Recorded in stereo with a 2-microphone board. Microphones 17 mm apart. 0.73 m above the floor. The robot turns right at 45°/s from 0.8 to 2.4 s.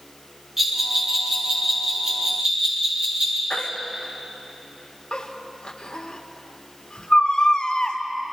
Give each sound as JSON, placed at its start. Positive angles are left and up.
{"t": 0.6, "sound": "a bell", "side_deg": -10, "distance_m": 8.5}
{"t": 3.5, "sound": "a baby crying", "side_deg": 70, "distance_m": 1.8}